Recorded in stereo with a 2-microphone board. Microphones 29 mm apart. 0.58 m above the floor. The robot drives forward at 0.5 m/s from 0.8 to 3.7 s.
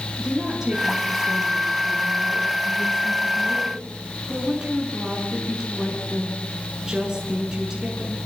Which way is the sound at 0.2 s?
25° right (ahead or behind).